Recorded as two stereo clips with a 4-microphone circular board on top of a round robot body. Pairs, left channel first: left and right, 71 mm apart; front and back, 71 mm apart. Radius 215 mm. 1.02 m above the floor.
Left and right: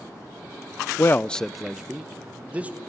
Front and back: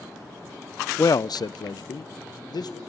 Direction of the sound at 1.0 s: 45° left.